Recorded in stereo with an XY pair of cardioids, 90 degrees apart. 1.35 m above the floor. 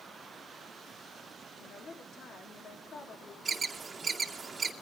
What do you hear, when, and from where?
1.6 s a woman speaking: 65° left, 3 m
3.5 s an alarm: 35° right, 2.5 m